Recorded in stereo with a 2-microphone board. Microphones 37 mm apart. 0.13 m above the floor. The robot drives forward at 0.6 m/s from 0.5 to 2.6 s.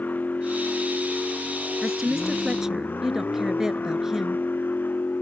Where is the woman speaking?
15° right (ahead or behind).